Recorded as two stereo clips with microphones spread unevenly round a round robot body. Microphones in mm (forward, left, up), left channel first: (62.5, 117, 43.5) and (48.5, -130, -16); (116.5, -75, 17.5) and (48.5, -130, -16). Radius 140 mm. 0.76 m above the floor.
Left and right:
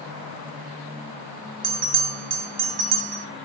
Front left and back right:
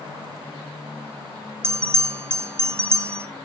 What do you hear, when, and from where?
1.6 s a bell: 115° right, 0.6 m